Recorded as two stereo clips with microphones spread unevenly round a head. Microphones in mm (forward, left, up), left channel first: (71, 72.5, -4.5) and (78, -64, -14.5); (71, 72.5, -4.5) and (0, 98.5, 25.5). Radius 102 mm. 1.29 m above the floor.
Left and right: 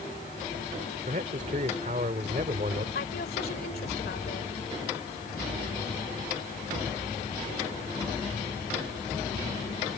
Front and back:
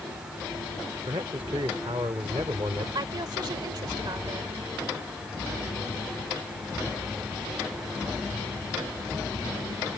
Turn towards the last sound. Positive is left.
turn(degrees=135)